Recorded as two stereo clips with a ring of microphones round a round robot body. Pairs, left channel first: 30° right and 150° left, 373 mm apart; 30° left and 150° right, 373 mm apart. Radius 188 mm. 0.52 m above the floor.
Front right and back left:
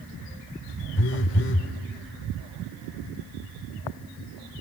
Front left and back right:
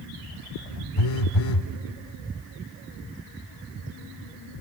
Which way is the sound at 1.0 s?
30° left.